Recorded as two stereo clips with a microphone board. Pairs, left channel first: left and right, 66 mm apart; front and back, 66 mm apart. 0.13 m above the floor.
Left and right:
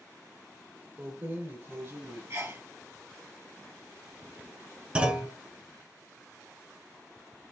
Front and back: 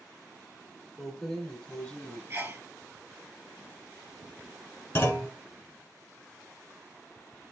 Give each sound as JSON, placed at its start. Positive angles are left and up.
{"t": 1.0, "sound": "keys jangling", "azimuth_deg": -100, "distance_m": 1.0}
{"t": 2.3, "sound": "a sneeze", "azimuth_deg": -130, "distance_m": 2.5}
{"t": 5.0, "sound": "a clunk", "azimuth_deg": -25, "distance_m": 0.8}